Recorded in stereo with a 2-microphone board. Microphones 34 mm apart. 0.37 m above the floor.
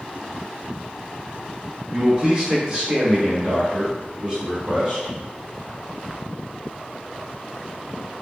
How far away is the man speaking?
About 1.7 m.